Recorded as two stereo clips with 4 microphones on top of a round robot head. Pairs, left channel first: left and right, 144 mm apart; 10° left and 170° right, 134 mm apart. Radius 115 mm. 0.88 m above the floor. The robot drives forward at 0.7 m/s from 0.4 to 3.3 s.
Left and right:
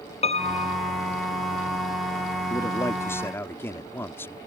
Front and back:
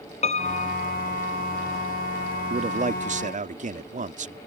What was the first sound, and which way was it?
A piano, 45° left.